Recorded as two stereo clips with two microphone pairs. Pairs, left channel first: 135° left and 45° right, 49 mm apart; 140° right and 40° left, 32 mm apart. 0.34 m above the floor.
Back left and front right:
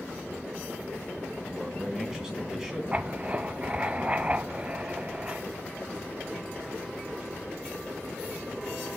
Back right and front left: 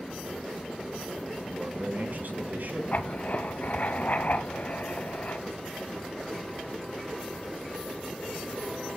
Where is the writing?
110° right, 0.7 m.